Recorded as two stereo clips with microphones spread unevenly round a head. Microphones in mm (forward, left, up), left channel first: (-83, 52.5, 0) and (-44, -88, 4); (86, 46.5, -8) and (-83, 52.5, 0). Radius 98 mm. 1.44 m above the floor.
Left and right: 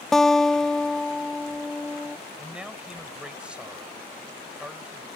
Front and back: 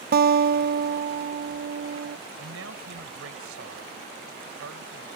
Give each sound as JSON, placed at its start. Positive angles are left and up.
{"t": 0.1, "sound": "a guitar", "azimuth_deg": -165}
{"t": 2.4, "sound": "a man speaking", "azimuth_deg": -155}